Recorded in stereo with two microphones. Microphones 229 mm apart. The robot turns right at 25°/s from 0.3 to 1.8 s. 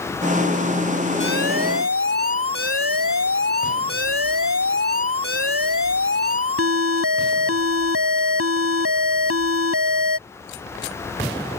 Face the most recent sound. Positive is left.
turn(degrees=-75)  # may be behind; listen again after turning